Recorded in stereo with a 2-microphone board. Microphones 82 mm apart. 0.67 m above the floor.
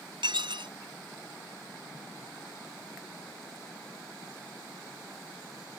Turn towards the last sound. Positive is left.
turn(degrees=-75)  # may be behind; listen again after turning